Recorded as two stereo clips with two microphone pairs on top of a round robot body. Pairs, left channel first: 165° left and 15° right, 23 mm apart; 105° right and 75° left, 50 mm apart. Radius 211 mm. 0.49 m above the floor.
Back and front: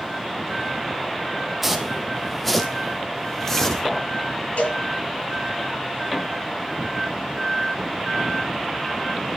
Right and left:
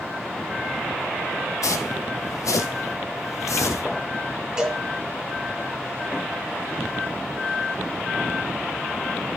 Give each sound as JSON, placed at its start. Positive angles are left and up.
{"t": 1.6, "sound": "footsteps", "azimuth_deg": -95, "distance_m": 1.8}
{"t": 4.6, "sound": "a cowbell", "azimuth_deg": 155, "distance_m": 9.5}